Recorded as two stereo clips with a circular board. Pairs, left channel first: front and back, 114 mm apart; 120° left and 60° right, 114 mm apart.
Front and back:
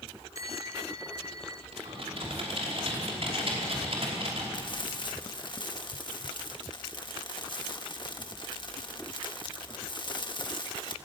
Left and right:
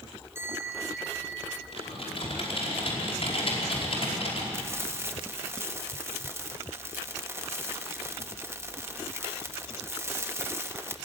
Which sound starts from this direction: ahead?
Frying, at 4.5 s.